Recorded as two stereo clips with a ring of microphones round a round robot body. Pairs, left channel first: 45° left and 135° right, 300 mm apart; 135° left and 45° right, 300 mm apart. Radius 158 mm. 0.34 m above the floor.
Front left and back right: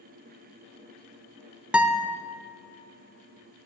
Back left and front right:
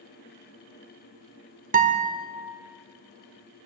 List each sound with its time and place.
1.7 s a guitar: 55° right, 1.1 m